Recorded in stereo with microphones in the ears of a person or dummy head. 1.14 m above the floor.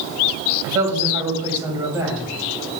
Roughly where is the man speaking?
Centre.